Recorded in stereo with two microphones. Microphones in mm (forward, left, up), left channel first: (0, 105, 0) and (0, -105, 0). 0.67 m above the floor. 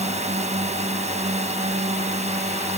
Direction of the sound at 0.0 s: 30° right (ahead or behind).